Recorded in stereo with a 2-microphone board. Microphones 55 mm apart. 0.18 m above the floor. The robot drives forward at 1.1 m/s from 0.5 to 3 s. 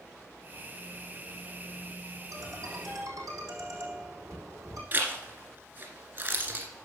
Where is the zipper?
40° right (ahead or behind), 2 m.